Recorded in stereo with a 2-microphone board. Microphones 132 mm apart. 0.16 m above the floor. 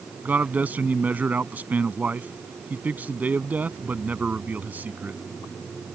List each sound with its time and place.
0.2 s a man speaking: 10° right (ahead or behind)